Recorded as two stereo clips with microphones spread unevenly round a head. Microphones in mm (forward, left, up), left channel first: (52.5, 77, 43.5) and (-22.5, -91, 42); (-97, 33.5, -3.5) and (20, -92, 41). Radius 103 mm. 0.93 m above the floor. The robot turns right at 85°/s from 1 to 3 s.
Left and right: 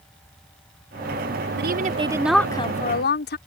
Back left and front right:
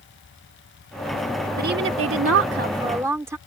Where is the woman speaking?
90° right; by 3.4 s 35° left.